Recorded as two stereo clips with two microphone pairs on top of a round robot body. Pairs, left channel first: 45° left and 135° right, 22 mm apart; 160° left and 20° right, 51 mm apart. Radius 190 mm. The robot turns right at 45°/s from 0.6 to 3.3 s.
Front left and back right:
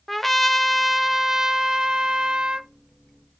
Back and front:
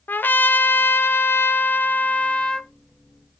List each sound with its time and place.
0.1 s a trumpet: 130° left, 1.3 m; by 2.7 s 135° right, 1.3 m